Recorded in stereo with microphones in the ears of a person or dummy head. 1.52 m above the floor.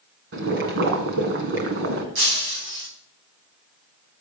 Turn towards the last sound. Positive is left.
turn(degrees=-70)  # may be behind; listen again after turning